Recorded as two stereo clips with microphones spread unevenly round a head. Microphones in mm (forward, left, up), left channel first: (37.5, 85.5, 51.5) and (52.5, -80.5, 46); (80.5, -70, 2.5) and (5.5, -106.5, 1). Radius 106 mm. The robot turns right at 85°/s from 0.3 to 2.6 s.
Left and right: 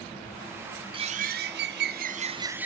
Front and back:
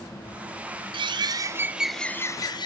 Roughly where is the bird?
Behind right.